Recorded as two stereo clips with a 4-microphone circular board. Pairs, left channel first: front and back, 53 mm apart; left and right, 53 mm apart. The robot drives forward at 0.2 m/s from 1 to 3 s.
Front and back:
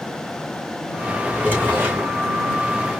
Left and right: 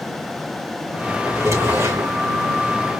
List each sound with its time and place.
1.2 s a drawer: 110° right, 3 m; by 2.1 s 115° right, 3 m